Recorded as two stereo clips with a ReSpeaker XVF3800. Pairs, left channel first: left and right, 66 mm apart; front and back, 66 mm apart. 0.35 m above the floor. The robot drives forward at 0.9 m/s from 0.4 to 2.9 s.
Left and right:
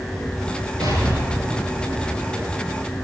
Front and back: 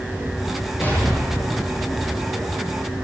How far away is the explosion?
About 5.5 m.